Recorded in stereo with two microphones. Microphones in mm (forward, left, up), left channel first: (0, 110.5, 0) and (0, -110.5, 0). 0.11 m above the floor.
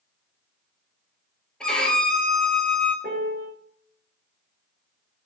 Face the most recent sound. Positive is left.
turn(degrees=-45)  # may be behind; listen again after turning